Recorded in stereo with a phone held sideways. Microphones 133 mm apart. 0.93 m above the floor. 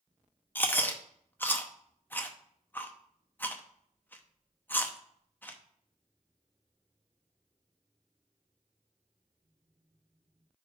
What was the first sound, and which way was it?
Chewing, 15° left (ahead or behind).